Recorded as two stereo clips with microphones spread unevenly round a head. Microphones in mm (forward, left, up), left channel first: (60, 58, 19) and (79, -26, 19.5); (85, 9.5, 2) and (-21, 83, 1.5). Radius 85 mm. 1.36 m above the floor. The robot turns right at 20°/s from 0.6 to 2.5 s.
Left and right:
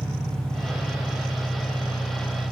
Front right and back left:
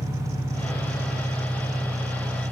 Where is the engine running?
15° left, 4 m; by 2.5 s 55° left, 4 m.